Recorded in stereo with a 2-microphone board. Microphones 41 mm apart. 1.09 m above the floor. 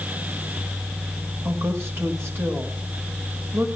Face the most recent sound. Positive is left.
turn(degrees=-85)